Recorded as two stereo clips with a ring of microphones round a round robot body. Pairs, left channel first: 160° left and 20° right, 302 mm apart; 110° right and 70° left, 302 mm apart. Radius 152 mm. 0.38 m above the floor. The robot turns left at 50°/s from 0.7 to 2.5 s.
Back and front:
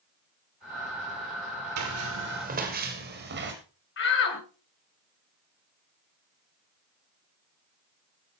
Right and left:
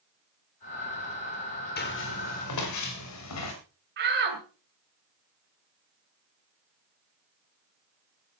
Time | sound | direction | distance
1.8 | footsteps | 55° right | 5.5 m
4.0 | a shout | 115° left | 2.5 m